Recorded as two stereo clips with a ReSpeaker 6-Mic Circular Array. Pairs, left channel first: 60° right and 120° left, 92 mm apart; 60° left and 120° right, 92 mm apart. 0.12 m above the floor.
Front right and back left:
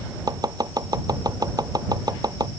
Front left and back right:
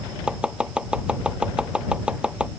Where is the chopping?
160° left.